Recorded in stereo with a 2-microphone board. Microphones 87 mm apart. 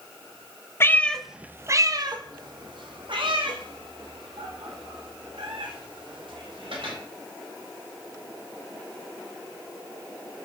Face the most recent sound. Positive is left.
turn(degrees=-85)